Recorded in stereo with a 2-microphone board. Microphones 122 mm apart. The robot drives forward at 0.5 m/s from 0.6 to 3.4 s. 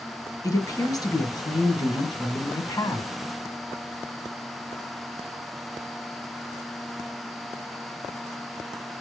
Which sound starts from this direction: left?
A woman speaking, at 0.4 s.